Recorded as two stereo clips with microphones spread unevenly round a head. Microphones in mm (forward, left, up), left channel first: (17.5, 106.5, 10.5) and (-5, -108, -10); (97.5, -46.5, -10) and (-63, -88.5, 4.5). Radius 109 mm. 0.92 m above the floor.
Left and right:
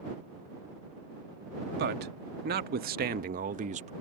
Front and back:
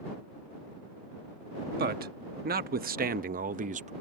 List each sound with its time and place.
1.8 s a man speaking: 140° right; by 3.9 s 135° right